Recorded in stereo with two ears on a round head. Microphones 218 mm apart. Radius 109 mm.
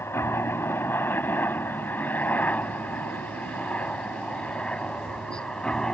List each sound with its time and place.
0.0 s a helicopter: 10° left (ahead or behind); by 5.9 s centre (ahead or behind)